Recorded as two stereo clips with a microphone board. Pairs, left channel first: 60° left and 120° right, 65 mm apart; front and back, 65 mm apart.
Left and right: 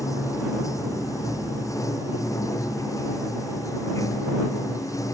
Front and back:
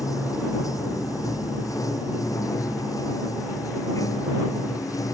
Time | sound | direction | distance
0.0 | running water | 30° left | ?